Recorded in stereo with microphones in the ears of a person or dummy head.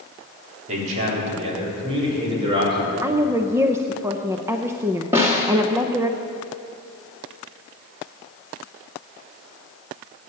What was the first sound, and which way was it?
A man speaking, 40° right (ahead or behind).